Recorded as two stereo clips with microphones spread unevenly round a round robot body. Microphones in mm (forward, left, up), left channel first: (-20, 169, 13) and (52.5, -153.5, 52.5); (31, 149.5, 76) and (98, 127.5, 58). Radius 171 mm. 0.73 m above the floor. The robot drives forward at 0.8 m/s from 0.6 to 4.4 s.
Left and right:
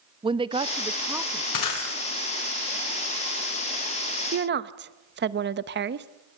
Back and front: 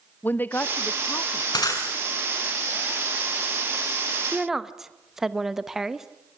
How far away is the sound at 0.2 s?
About 0.9 m.